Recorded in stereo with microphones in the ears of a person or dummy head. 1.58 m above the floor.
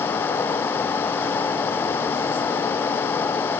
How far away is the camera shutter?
I don't hear a camera shutter.